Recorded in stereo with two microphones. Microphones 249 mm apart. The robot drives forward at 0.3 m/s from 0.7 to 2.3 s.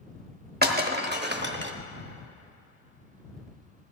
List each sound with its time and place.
0.6 s breaking glass: 40° right (ahead or behind), 1.1 m; by 1.7 s 45° right (ahead or behind), 0.9 m